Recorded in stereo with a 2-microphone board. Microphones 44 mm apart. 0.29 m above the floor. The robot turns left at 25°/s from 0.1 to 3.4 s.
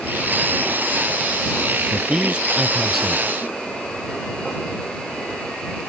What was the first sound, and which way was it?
A man speaking, 150° right.